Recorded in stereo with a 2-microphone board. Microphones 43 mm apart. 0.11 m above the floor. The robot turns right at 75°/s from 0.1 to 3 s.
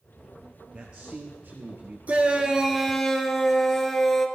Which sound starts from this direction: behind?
A man speaking, at 0.7 s.